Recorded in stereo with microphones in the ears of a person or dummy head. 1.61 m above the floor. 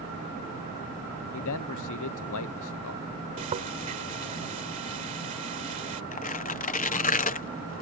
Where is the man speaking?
75° left (ahead or behind).